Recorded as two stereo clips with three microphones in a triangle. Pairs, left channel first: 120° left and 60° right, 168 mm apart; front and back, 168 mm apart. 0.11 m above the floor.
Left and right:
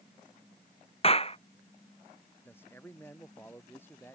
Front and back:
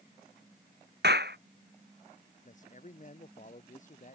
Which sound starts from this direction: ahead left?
A man speaking, at 2.4 s.